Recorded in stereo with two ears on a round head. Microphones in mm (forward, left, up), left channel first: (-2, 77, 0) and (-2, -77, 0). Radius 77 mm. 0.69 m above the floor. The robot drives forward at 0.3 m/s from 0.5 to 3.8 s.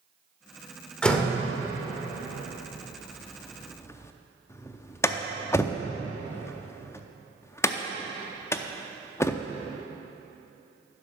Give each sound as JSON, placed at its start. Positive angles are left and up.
{"t": 1.0, "sound": "a door slam", "side_deg": 5, "distance_m": 1.3}